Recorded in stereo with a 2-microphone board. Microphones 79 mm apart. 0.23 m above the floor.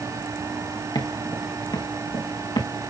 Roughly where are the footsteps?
Left.